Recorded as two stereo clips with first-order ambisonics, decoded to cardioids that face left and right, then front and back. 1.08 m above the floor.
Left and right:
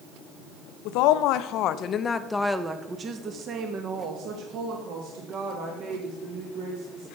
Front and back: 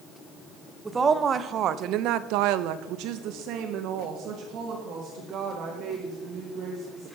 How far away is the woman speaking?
About 0.9 m.